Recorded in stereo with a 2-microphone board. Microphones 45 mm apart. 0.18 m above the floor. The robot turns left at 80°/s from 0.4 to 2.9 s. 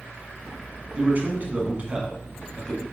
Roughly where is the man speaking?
Ahead right.